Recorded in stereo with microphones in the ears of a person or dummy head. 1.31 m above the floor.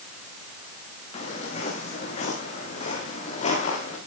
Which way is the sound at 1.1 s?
40° left (ahead or behind).